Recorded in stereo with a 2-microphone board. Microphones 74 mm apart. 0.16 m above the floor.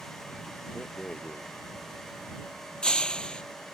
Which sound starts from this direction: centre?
A rattle, at 0.8 s.